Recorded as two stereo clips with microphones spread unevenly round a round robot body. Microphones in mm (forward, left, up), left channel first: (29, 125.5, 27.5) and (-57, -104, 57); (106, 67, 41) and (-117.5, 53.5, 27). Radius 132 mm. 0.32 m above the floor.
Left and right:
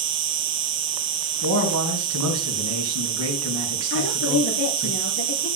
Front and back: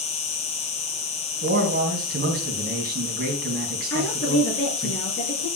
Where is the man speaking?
130° right, 3 m.